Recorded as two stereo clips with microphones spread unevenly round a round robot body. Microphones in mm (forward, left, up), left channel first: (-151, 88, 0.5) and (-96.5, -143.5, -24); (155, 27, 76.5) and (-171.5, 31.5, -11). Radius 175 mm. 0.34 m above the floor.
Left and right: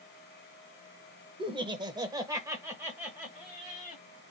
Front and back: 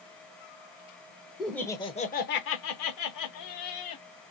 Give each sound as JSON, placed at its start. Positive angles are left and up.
{"t": 1.4, "sound": "laughter", "azimuth_deg": -115, "distance_m": 0.9}